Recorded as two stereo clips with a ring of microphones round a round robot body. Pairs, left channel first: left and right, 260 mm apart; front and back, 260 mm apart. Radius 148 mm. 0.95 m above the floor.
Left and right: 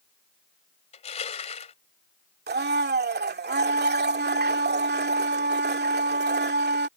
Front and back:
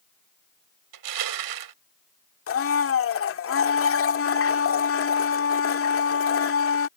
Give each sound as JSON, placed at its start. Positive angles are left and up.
{"t": 0.9, "sound": "crushing", "azimuth_deg": 160}
{"t": 2.5, "sound": "a blender", "azimuth_deg": -40}